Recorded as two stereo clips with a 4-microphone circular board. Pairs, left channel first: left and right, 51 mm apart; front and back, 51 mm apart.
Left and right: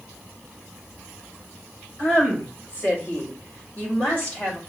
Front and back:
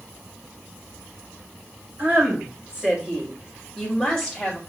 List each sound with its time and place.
2.0 s a woman speaking: 130° left, 2 m; by 4.6 s 60° left, 1.6 m